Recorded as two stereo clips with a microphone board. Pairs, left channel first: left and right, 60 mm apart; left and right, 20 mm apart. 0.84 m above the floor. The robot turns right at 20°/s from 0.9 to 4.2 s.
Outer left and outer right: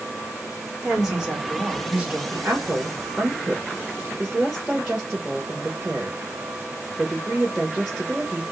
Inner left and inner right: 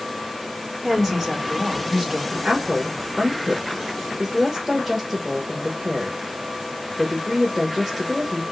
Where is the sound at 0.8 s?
5° right (ahead or behind), 2.0 m; by 2.2 s 25° right (ahead or behind), 2.0 m.